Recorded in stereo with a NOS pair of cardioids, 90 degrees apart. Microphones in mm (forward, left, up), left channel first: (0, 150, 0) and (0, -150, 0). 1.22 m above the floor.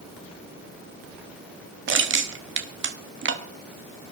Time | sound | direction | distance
1.9 | crushing | 40° right | 1.6 m